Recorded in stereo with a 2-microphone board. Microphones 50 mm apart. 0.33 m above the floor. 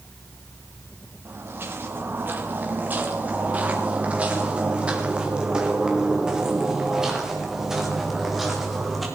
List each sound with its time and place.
1.2 s footsteps: 50° right (ahead or behind), 5 m; by 9.1 s centre (ahead or behind), 9 m